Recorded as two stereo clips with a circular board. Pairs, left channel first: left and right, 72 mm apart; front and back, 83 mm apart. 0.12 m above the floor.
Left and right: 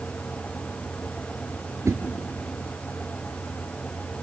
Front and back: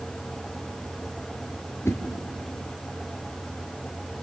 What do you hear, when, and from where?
1.9 s a whoosh: 50° right, 2.5 m